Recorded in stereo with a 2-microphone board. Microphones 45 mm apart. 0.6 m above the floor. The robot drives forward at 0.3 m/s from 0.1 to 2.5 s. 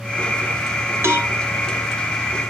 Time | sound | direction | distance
1.0 | a cowbell | 70° right (ahead or behind) | 2.0 m